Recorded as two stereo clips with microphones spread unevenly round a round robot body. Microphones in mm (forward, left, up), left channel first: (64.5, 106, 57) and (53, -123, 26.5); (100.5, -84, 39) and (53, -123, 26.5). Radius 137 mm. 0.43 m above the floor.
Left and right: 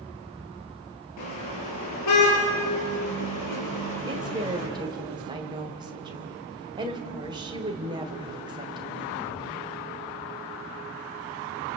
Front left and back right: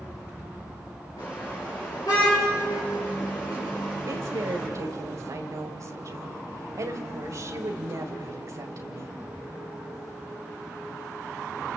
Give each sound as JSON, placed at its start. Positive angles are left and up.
{"t": 1.2, "sound": "a car horn", "azimuth_deg": 110, "distance_m": 6.0}
{"t": 4.1, "sound": "a woman speaking", "azimuth_deg": -160, "distance_m": 2.0}